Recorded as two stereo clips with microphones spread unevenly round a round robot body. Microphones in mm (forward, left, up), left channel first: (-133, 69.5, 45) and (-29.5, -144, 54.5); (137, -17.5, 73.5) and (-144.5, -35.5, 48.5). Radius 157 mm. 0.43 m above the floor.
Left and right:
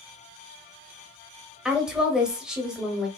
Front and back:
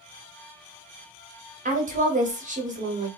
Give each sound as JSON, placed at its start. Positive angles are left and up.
{"t": 1.6, "sound": "a woman speaking", "azimuth_deg": -155, "distance_m": 1.1}